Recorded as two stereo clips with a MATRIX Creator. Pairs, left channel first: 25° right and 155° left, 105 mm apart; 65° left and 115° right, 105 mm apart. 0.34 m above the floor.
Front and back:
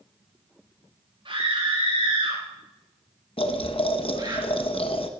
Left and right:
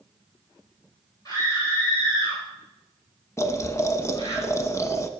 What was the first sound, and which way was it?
A scream, 120° left.